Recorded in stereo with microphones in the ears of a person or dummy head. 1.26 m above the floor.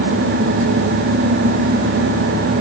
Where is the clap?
I don't hear a clap.